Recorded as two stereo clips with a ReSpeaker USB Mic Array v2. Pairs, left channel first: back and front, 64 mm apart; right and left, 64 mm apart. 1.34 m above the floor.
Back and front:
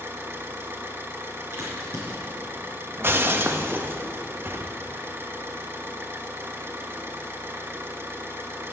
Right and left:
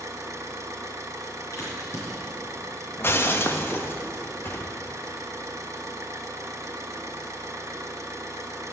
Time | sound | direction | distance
0.0 | an engine running | 50° left | 1.2 m
1.5 | a crack | 50° right | 5 m
3.0 | breaking glass | 45° right | 0.8 m